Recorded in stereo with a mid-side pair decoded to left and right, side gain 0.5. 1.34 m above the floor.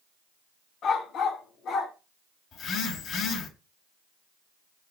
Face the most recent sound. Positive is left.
turn(degrees=60)